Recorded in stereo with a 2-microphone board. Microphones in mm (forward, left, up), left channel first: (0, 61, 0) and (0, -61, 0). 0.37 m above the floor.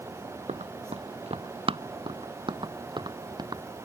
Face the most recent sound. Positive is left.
turn(degrees=-35)  # may be behind; listen again after turning